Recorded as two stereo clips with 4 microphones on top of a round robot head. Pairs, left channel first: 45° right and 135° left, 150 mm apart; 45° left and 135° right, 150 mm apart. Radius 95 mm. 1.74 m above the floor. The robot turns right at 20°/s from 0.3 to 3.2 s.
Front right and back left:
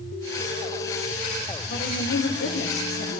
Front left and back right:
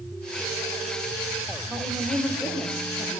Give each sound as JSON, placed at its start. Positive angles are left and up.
{"t": 1.7, "sound": "a woman speaking", "azimuth_deg": -50, "distance_m": 2.0}